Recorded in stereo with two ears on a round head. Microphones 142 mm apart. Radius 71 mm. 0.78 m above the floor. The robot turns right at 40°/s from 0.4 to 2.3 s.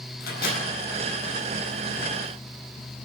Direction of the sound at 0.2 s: 65° left (ahead or behind).